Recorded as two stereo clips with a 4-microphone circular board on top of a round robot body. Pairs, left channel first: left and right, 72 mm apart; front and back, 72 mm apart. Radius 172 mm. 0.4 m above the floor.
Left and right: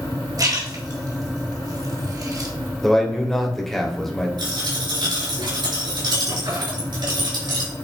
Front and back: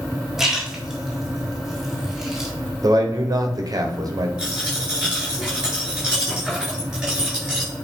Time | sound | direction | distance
0.4 | a splash | 95° right | 2.0 m
2.8 | a man speaking | 175° left | 1.9 m
4.4 | a dropped coin | 100° right | 4.5 m